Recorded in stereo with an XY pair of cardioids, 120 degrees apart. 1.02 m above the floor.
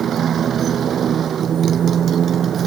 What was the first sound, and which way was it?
A motorcycle, 45° right.